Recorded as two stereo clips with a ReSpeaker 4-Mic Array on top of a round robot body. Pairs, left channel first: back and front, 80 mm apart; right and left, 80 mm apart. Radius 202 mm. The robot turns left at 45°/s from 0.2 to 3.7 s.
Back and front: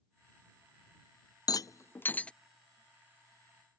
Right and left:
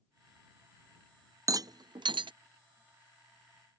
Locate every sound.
1.5 s a rattle: 140° left; by 2.3 s 100° left